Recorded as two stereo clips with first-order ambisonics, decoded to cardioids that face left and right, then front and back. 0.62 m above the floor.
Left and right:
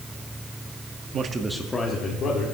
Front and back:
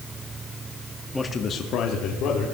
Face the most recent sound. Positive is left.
turn(degrees=40)